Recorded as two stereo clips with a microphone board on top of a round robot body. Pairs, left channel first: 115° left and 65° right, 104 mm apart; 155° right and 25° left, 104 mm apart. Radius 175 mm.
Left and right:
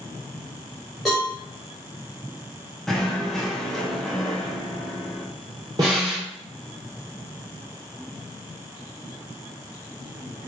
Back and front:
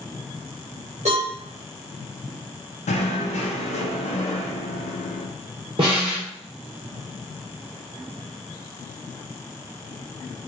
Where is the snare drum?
15° right, 1.0 m.